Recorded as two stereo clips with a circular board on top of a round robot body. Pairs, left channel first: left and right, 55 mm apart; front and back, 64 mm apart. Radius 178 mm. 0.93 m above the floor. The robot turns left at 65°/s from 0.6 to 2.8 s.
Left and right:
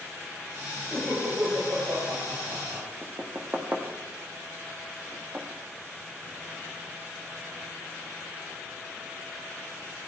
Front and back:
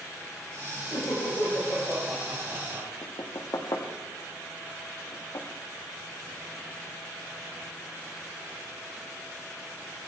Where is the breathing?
No breathing in this recording.